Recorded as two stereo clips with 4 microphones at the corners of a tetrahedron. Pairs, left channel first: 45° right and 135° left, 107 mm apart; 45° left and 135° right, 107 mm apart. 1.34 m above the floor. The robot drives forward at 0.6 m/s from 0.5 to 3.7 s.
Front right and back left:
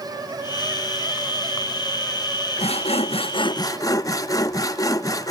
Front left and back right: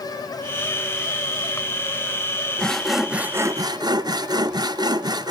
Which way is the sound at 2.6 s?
35° right.